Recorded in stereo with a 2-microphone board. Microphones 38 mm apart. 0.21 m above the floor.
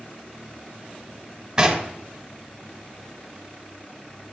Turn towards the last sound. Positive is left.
turn(degrees=-15)  # may be behind; listen again after turning